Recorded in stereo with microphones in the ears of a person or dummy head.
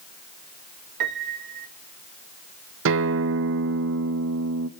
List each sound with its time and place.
1.0 s a piano: 55° right (ahead or behind), 1.0 m
2.9 s a guitar: 70° right (ahead or behind), 1.4 m